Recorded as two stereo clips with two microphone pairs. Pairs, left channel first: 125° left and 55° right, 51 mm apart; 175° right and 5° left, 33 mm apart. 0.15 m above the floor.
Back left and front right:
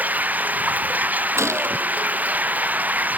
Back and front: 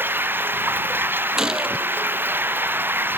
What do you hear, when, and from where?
0.0 s running water: straight ahead
1.4 s a gunshot: 65° right